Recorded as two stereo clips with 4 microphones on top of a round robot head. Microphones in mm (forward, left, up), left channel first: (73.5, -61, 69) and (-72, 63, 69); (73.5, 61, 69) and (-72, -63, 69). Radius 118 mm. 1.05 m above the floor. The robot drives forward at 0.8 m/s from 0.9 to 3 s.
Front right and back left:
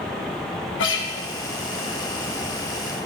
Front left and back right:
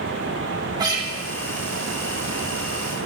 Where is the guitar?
70° right, 1.5 m; by 1.1 s 75° right, 1.4 m.